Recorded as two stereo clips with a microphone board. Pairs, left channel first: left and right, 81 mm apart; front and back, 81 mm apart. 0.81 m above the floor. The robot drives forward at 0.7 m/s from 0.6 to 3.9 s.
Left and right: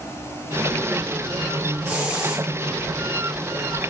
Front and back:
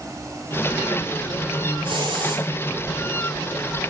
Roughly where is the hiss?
Behind.